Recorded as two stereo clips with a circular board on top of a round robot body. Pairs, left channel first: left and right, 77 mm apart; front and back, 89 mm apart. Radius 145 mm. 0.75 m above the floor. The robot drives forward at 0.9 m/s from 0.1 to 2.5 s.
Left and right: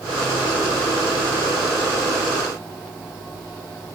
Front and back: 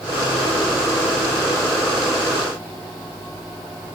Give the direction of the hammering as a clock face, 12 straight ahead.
No hammering in this recording.